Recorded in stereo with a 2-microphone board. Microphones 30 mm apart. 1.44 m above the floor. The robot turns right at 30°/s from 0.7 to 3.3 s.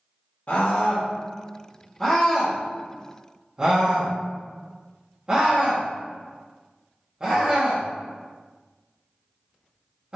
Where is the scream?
50° left (ahead or behind), 2 m; by 10.2 s 30° right (ahead or behind), 2 m.